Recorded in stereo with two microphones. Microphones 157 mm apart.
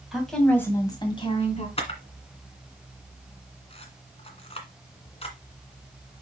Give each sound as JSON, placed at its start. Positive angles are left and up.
{"t": 0.1, "sound": "a woman speaking", "side_deg": 0, "distance_m": 2.0}
{"t": 1.8, "sound": "a camera shutter", "side_deg": 40, "distance_m": 1.8}